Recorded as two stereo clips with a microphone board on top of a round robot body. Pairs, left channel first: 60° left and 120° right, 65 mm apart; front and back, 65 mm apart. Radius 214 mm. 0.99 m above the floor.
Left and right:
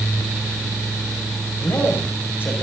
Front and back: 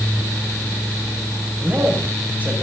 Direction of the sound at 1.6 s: 115° left.